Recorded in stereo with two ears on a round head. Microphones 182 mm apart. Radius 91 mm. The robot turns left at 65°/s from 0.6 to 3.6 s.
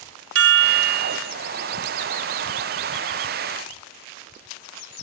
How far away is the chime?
About 1.2 m.